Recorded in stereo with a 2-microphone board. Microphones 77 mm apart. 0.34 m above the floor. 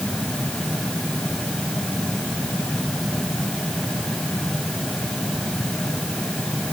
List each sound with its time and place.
Only background noise.